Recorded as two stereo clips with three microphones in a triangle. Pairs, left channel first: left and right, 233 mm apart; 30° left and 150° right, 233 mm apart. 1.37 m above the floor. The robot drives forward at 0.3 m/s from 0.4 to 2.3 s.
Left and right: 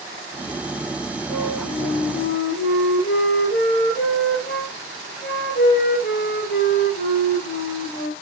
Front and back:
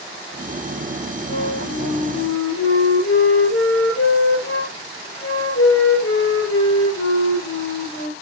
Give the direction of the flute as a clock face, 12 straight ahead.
10 o'clock.